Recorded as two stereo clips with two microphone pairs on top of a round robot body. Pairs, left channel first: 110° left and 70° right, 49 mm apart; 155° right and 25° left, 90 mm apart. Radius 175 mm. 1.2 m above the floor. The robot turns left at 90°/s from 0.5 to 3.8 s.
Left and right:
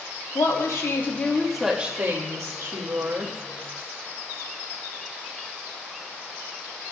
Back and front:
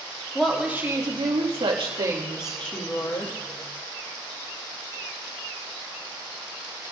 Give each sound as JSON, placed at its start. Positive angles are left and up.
{"t": 0.3, "sound": "a woman speaking", "azimuth_deg": 115, "distance_m": 2.5}